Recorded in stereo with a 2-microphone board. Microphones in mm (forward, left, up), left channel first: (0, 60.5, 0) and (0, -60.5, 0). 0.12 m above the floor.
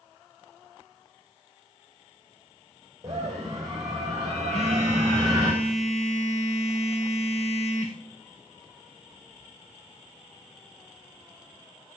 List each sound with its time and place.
3.0 s a scream: 25° right (ahead or behind), 6 m
4.5 s a phone buzzing: 60° left (ahead or behind), 2.5 m